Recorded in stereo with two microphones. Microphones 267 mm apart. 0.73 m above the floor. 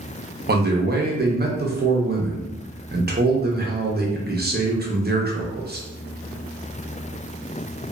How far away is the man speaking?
About 0.6 m.